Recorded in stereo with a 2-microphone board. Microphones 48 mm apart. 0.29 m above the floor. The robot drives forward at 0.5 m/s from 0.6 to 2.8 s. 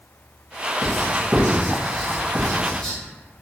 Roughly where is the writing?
Centre.